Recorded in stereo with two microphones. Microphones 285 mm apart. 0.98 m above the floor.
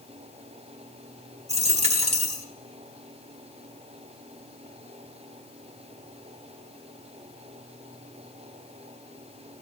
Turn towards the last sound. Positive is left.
turn(degrees=-25)  # may be behind; listen again after turning